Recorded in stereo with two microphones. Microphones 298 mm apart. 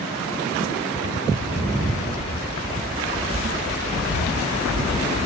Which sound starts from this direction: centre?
Footsteps, at 1.3 s.